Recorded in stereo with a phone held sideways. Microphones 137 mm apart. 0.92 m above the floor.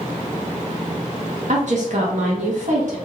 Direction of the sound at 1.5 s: 65° right (ahead or behind).